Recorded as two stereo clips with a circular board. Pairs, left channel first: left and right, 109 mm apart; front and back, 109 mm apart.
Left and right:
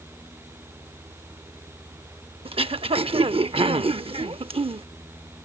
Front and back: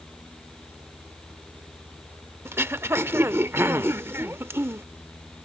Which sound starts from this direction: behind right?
Throat clearing, at 2.5 s.